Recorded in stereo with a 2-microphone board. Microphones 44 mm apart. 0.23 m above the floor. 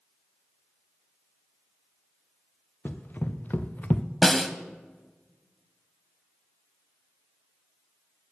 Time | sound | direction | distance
2.9 | running footsteps | 45° left (ahead or behind) | 1.8 m
4.2 | a snare drum | 5° left (ahead or behind) | 0.9 m